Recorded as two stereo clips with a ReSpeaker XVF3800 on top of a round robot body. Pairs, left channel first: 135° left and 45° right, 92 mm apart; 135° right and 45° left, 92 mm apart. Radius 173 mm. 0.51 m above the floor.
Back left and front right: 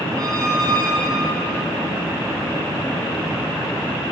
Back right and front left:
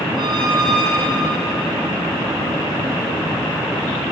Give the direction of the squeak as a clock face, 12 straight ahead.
12 o'clock.